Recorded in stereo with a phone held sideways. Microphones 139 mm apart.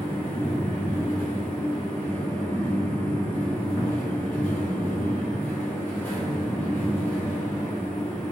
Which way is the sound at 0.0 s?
15° left (ahead or behind).